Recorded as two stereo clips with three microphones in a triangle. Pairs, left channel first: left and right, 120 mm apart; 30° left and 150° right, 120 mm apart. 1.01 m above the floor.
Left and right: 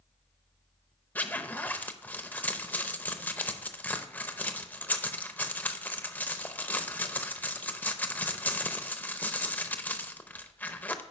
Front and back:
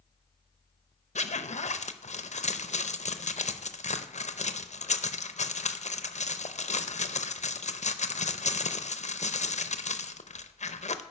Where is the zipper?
15° left, 0.5 m.